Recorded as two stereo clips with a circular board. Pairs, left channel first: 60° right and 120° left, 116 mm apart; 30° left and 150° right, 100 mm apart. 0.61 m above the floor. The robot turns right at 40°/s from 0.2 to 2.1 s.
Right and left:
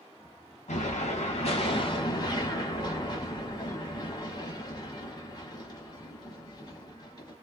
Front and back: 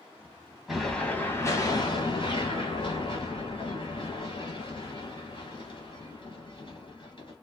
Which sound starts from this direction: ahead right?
An explosion, at 0.7 s.